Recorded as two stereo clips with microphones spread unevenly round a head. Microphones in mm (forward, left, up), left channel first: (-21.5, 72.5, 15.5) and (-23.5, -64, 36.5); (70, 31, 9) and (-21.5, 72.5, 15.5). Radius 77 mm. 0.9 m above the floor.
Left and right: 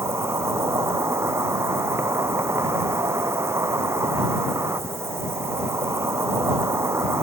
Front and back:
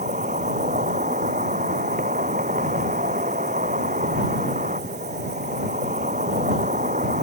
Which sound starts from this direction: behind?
An insect, at 0.0 s.